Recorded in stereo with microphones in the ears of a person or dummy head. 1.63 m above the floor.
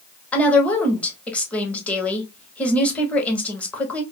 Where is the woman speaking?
15° left (ahead or behind), 1.0 m.